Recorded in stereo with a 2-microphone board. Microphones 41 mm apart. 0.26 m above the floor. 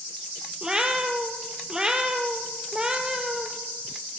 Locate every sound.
0.6 s a cat meowing: 20° right (ahead or behind), 1.1 m